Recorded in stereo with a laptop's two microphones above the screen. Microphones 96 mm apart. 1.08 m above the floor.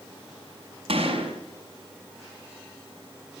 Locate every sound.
0.9 s a gunshot: 65° right (ahead or behind), 6 m